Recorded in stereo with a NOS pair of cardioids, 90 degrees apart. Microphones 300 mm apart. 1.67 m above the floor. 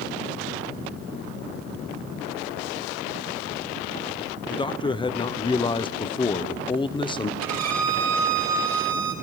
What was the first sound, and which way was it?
A man speaking, 15° left.